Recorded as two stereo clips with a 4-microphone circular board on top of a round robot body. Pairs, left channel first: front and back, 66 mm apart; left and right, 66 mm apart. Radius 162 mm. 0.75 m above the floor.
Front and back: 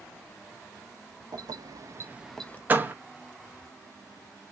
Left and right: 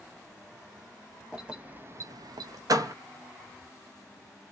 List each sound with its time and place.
1.3 s keys jangling: 170° right, 1.2 m; by 2.6 s 60° right, 0.7 m
2.7 s a door slam: 115° right, 0.7 m